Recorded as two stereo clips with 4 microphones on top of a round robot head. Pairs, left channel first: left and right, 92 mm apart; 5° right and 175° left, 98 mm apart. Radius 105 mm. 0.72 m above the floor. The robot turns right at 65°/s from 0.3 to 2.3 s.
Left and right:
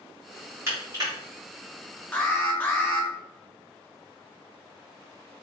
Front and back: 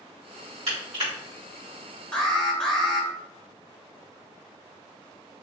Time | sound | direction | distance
0.7 | crushing | 155° right | 2.0 m
2.1 | an alarm | 55° left | 1.2 m